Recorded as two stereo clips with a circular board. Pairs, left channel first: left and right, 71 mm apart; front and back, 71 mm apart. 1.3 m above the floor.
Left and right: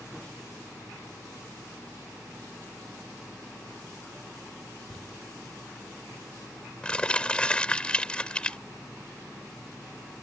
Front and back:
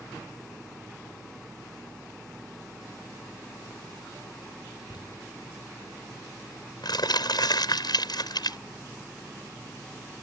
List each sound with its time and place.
4.9 s crumpling: 15° left